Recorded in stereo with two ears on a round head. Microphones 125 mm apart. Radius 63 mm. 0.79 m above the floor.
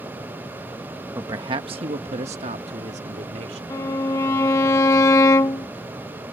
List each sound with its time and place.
1.1 s a man speaking: 20° right (ahead or behind); by 3.6 s 50° right (ahead or behind)
3.7 s a violin: 20° left (ahead or behind)